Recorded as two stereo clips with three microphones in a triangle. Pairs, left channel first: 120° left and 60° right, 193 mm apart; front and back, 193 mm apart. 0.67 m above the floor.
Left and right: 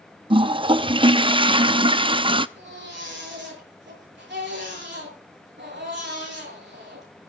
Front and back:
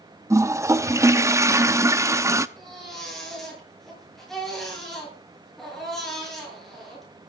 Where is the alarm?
I don't hear an alarm.